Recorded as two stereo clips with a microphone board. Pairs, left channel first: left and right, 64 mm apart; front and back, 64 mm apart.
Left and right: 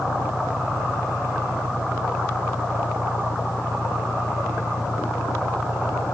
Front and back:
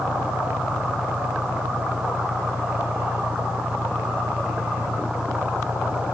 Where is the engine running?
115° left.